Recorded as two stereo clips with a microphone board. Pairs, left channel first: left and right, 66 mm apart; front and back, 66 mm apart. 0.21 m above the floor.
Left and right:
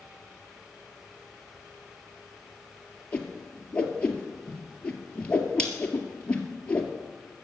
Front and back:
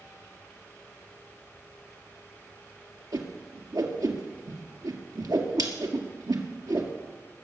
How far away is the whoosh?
About 1.9 m.